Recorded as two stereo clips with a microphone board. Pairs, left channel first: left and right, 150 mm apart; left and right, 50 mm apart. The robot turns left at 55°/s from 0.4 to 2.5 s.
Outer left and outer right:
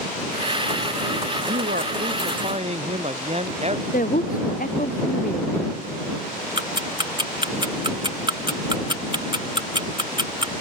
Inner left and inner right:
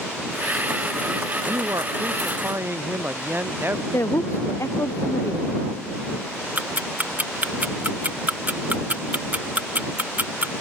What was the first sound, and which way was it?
A man speaking, 75° right.